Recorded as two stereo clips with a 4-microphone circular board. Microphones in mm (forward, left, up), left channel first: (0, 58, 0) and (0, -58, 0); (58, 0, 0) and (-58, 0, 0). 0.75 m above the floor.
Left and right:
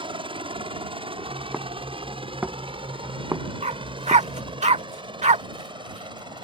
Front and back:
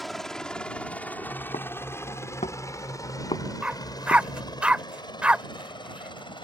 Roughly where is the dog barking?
Right.